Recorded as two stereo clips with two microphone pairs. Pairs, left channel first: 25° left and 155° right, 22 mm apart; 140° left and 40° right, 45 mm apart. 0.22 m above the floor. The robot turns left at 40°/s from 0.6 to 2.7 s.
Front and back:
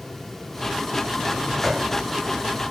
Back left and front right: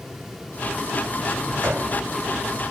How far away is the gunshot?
About 5.5 m.